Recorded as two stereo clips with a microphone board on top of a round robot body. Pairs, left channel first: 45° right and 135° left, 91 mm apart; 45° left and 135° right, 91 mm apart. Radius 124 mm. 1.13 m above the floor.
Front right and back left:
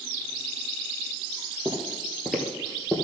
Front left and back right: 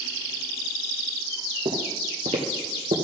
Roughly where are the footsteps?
Behind right.